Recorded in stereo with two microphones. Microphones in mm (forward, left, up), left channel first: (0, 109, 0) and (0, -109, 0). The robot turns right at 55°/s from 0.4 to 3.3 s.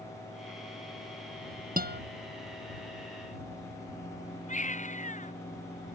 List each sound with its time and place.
1.8 s a guitar: 40° right (ahead or behind); by 2.0 s 55° right (ahead or behind)
4.5 s a baby crying: 35° left (ahead or behind)